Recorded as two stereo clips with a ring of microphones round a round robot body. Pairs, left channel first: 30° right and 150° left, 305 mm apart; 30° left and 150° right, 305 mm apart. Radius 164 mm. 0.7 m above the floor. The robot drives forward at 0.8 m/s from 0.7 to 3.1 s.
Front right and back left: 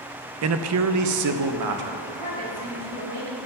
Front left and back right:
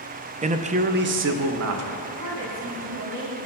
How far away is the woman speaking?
About 4 m.